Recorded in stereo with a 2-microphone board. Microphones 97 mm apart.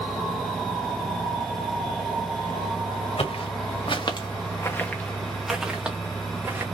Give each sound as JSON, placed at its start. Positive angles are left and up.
{"t": 3.2, "sound": "footsteps", "side_deg": 80, "distance_m": 1.3}